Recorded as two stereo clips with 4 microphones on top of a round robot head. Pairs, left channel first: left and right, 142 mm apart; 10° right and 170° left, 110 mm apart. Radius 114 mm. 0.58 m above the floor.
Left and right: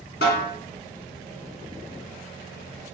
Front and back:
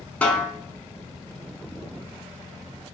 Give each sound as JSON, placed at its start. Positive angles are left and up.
{"t": 0.2, "sound": "a snare drum", "azimuth_deg": 65, "distance_m": 0.9}